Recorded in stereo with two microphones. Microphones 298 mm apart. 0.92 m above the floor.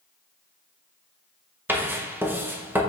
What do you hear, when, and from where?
1.7 s writing: 5° right (ahead or behind), 0.6 m